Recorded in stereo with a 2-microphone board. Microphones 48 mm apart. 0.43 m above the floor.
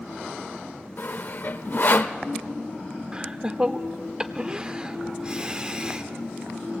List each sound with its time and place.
1.0 s sawing: 50° left (ahead or behind), 0.9 m
3.1 s laughter: 20° right (ahead or behind), 0.7 m